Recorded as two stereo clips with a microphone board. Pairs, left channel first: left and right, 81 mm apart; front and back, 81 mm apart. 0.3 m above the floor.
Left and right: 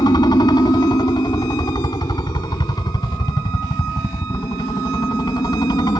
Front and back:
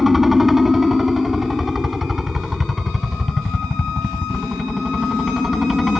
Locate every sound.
0.0 s a helicopter: 95° left